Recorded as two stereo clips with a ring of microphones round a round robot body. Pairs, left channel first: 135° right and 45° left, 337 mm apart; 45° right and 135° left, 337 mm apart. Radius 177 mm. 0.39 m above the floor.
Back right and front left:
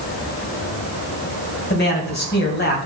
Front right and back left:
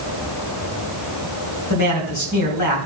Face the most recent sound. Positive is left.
turn(degrees=-75)